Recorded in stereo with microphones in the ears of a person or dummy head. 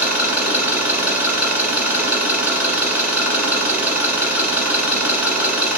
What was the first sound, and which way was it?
An engine running, 10° right (ahead or behind).